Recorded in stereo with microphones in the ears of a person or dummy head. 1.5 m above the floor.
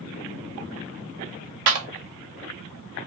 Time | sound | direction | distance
1.7 | a clap | 65° right (ahead or behind) | 0.7 m